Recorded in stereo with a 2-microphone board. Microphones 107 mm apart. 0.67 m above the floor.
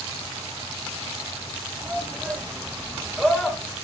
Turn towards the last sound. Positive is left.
turn(degrees=5)  # may be behind; listen again after turning